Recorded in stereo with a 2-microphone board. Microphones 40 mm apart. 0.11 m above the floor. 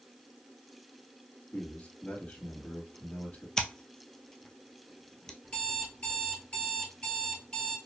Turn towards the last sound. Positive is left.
turn(degrees=25)  # may be behind; listen again after turning